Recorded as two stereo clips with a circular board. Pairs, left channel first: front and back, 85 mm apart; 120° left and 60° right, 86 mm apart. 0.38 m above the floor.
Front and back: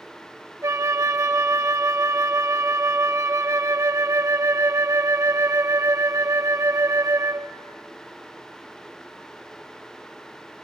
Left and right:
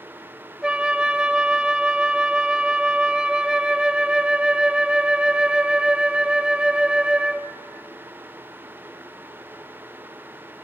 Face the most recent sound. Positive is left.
turn(degrees=-140)